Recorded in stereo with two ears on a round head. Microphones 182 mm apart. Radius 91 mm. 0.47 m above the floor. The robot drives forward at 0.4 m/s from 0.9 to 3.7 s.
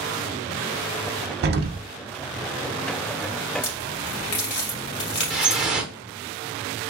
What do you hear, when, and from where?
1.4 s an explosion: 55° right (ahead or behind), 0.6 m; by 1.9 s 45° right (ahead or behind), 0.7 m
3.6 s a crack: 60° left (ahead or behind), 2.5 m
5.3 s dripping: 5° right (ahead or behind), 0.8 m